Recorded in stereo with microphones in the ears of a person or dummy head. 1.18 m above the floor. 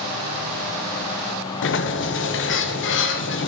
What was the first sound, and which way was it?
A sliding door, 65° left (ahead or behind).